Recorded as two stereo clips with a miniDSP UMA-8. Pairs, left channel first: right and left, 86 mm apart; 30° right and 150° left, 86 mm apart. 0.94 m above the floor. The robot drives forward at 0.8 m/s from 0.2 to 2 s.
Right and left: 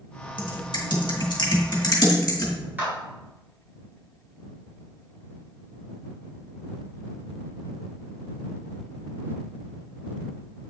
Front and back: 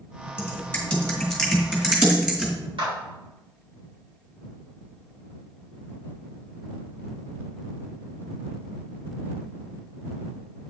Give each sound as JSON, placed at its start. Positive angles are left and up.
{"t": 0.4, "sound": "typing on a keyboard", "azimuth_deg": -95, "distance_m": 1.7}
{"t": 2.8, "sound": "a clap", "azimuth_deg": 155, "distance_m": 4.0}